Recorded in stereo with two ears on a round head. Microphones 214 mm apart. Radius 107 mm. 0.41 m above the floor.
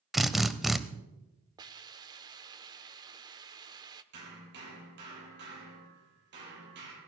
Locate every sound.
0.1 s a drill: centre (ahead or behind), 0.8 m
1.6 s a hiss: 20° right (ahead or behind), 0.7 m
4.1 s hammering: 50° right (ahead or behind), 7 m